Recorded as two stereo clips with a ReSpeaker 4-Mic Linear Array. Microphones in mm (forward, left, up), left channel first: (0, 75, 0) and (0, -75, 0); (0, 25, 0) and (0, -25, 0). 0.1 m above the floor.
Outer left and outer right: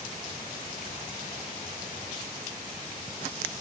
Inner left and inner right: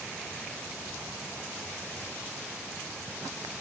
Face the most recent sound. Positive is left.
No sound to turn to.